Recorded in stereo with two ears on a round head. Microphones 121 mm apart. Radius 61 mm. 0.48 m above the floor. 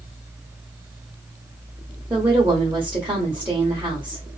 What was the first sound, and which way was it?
A woman speaking, 15° right (ahead or behind).